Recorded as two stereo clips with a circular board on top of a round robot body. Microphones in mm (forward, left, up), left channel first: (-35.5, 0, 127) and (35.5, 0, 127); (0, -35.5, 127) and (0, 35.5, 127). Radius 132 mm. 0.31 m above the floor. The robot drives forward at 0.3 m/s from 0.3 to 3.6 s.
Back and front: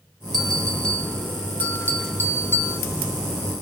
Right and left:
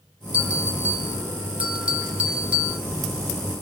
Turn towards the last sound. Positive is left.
turn(degrees=155)